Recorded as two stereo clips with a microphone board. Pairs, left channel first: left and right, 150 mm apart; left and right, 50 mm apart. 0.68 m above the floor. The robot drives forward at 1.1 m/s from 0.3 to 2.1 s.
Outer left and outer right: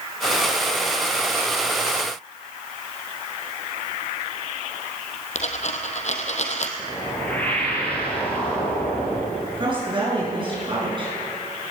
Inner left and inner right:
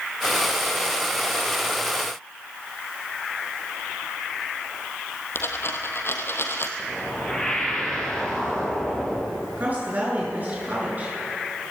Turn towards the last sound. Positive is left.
turn(degrees=-35)  # may be behind; listen again after turning